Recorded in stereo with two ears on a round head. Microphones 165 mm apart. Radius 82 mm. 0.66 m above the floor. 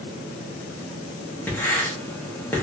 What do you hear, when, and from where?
1.5 s writing: 10° left (ahead or behind), 0.8 m